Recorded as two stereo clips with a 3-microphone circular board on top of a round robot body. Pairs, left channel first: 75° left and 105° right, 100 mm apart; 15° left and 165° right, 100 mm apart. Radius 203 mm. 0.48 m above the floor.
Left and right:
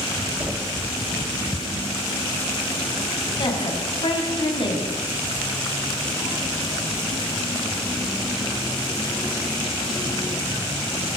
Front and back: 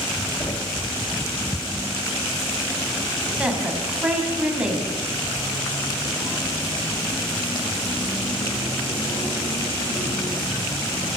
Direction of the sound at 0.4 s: 35° right.